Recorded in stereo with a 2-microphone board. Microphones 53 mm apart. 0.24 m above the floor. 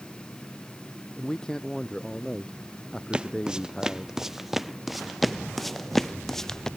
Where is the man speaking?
15° left (ahead or behind).